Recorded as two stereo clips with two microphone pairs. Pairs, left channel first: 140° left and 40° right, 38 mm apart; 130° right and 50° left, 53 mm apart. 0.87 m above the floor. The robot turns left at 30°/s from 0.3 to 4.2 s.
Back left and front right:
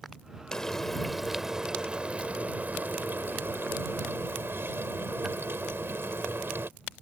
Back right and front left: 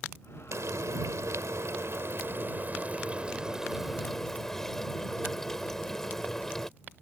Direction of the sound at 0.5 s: 65° left.